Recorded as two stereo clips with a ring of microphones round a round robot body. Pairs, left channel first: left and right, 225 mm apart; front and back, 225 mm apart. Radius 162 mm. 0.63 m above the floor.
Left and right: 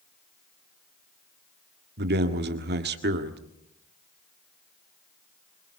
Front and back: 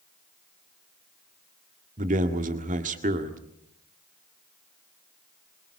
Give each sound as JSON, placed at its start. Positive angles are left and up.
{"t": 2.0, "sound": "a man speaking", "azimuth_deg": -125, "distance_m": 1.7}